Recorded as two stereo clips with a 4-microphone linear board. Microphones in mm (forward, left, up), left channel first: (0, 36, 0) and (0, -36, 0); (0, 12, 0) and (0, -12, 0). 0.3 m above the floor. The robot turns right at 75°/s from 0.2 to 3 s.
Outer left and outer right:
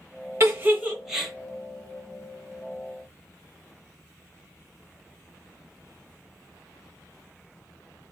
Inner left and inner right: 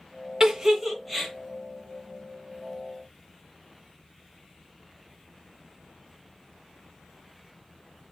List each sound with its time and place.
0.4 s a giggle: 40° right (ahead or behind), 0.6 m; by 1.3 s 5° left (ahead or behind), 0.6 m